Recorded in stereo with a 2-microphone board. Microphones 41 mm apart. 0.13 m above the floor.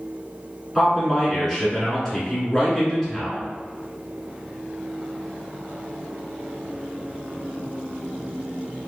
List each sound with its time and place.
0.8 s a man speaking: 5° left (ahead or behind), 1.3 m